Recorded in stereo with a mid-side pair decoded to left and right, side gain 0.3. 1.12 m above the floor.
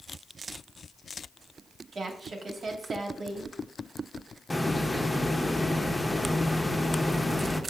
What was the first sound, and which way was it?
A woman speaking, 65° right.